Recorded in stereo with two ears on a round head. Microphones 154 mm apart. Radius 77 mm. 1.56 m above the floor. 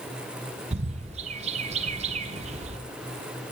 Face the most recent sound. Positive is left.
turn(degrees=-40)  # may be behind; listen again after turning